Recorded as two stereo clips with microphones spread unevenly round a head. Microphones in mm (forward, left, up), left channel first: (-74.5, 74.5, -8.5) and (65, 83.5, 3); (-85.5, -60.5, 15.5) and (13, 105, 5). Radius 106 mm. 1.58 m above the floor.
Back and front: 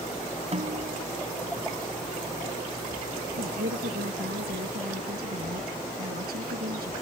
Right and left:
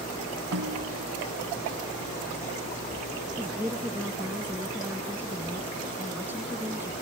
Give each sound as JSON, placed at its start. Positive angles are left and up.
{"t": 0.5, "sound": "a snare drum", "azimuth_deg": 40}
{"t": 3.4, "sound": "a woman speaking", "azimuth_deg": -25}